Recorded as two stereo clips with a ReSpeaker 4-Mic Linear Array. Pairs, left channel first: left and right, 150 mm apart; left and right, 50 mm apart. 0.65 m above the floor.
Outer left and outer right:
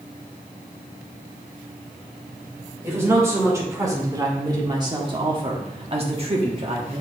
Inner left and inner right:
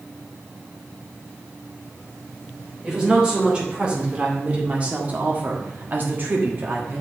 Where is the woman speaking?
20° right (ahead or behind), 3 m; by 7.0 s 40° right (ahead or behind), 1.4 m.